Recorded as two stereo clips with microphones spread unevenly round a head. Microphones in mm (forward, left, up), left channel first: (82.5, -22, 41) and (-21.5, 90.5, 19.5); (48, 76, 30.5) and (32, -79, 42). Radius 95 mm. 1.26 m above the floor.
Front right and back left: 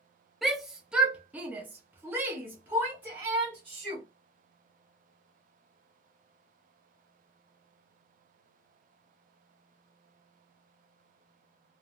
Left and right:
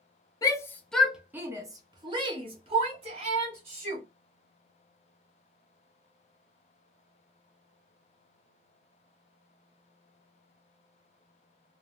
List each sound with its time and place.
0.4 s a shout: 60° left, 0.6 m; by 4.0 s 150° right, 1.8 m